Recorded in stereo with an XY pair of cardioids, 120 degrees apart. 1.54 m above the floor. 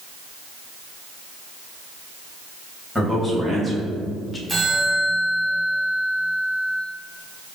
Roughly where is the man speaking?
Ahead.